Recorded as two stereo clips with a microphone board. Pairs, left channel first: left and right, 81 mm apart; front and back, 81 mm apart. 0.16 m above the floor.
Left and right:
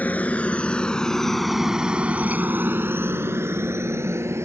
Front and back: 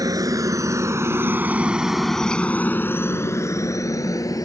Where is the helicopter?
155° left; by 4.5 s 40° right.